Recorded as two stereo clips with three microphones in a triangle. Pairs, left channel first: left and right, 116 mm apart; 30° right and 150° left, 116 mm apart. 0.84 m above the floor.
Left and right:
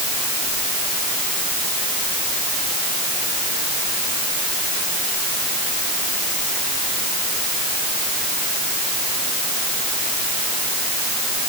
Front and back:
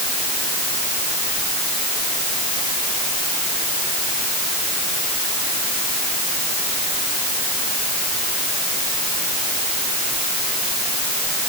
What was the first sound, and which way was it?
Only background noise.